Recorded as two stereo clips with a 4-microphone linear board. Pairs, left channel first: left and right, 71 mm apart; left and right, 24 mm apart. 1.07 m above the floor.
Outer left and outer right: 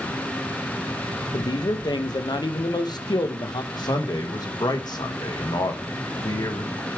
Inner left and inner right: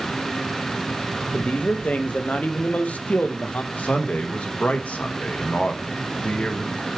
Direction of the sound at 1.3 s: 65° left (ahead or behind).